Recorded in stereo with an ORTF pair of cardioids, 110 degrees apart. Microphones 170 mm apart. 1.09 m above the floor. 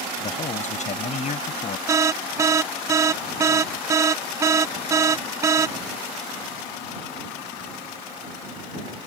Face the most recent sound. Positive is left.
turn(degrees=-20)